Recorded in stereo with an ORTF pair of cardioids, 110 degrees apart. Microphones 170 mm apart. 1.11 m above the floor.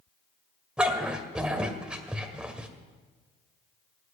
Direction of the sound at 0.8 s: 5° right.